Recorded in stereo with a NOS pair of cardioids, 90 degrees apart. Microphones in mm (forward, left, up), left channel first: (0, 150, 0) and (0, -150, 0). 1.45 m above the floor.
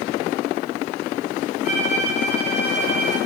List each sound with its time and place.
1.6 s a violin: 50° right, 5.5 m